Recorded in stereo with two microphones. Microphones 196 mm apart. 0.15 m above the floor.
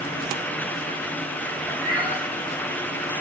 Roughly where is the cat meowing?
Centre.